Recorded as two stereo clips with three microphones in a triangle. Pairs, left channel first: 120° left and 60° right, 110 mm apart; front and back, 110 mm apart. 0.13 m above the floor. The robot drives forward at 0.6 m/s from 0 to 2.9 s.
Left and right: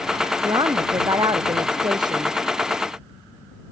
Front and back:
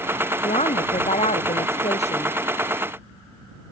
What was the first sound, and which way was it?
A woman speaking, 10° right.